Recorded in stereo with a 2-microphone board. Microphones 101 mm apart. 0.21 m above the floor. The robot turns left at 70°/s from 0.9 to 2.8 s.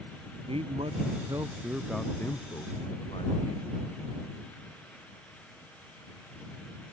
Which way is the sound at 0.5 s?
110° right.